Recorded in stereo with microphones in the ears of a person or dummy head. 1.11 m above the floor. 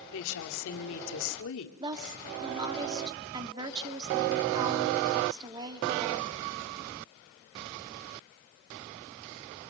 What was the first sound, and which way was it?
A woman speaking, 70° left (ahead or behind).